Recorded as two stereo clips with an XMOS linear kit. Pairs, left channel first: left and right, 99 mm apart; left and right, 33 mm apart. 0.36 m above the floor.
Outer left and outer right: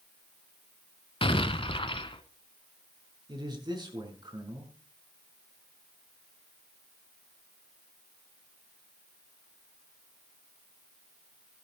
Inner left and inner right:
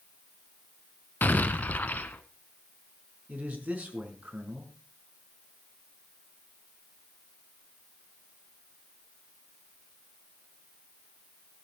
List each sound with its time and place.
1.2 s an explosion: 75° left (ahead or behind), 1.3 m
3.3 s a man speaking: 55° right (ahead or behind), 5 m